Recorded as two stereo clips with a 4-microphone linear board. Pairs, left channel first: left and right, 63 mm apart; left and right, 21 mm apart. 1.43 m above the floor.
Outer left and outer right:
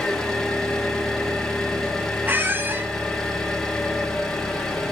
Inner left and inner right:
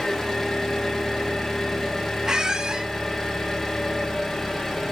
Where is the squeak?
30° right (ahead or behind), 0.9 m.